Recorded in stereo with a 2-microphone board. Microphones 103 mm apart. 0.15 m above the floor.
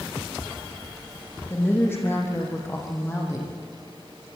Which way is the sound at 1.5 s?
20° left (ahead or behind).